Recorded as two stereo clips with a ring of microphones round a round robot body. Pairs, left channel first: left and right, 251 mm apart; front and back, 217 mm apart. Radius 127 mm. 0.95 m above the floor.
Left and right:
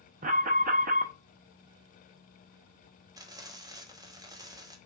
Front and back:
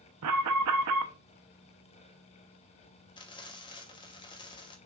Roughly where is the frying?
Ahead right.